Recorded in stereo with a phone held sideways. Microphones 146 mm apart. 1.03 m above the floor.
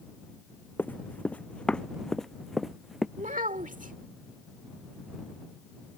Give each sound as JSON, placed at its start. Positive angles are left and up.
{"t": 0.8, "sound": "running footsteps", "side_deg": 15}
{"t": 3.2, "sound": "a child speaking", "side_deg": -65}